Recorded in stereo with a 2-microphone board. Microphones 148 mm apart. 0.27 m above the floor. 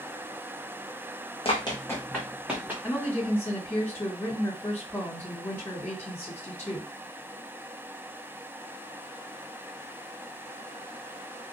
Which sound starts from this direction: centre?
A woman speaking, at 2.8 s.